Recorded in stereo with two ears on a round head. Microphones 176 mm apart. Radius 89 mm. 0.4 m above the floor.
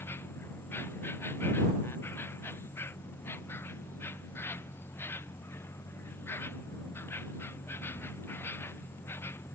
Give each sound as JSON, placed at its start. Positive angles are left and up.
{"t": 0.0, "sound": "an insect", "side_deg": 10}